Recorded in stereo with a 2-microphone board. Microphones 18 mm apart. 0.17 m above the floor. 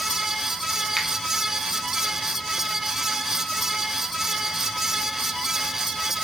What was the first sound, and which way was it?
A finger snap, 5° left (ahead or behind).